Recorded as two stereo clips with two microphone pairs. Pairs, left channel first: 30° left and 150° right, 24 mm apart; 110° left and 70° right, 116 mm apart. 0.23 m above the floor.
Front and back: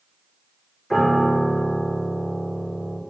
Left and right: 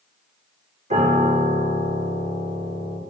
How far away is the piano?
About 2.5 m.